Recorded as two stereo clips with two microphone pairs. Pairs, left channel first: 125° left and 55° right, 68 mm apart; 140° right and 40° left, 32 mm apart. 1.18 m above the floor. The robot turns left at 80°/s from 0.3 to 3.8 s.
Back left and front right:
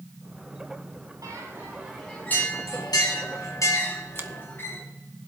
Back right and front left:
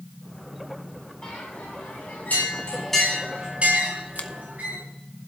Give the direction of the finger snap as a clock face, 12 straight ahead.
4 o'clock.